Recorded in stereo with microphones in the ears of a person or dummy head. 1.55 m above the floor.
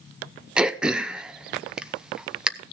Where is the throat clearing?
5° right (ahead or behind), 0.6 m.